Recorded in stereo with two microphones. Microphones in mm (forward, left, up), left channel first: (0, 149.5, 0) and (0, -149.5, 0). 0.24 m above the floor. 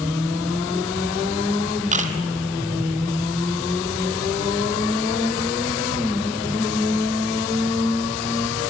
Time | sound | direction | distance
1.9 | a camera shutter | 25° right (ahead or behind) | 2 m